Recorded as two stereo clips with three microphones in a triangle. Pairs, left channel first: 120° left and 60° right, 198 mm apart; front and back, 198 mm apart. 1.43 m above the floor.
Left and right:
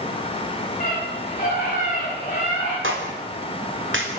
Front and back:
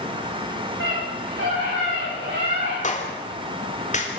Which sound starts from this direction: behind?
A scream, at 0.8 s.